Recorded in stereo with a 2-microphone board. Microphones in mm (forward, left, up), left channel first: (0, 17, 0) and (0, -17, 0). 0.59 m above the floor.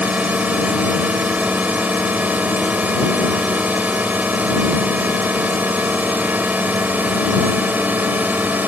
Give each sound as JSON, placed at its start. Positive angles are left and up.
{"t": 0.0, "sound": "a drone", "side_deg": -50}